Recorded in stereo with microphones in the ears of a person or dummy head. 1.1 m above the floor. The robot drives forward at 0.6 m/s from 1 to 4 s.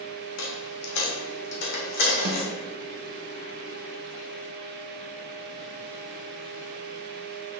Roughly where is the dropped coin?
Left.